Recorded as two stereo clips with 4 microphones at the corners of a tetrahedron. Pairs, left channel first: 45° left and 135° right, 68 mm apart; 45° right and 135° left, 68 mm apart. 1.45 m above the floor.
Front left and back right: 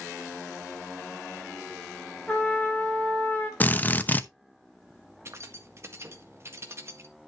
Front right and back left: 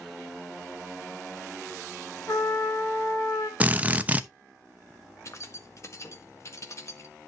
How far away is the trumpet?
About 3.5 m.